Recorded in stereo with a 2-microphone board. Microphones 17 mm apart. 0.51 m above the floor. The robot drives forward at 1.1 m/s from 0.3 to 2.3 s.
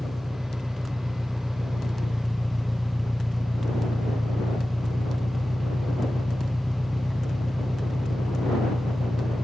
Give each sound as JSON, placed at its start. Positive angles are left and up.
{"t": 0.0, "sound": "an engine running", "side_deg": 10}